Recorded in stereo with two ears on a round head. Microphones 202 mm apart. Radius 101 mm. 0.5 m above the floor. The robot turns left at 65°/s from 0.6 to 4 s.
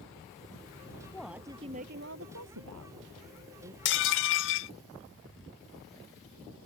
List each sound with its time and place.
1.1 s a woman speaking: 10° left; by 3.8 s 160° right
3.9 s dishes clattering: 50° left (ahead or behind); by 4.7 s 60° left (ahead or behind)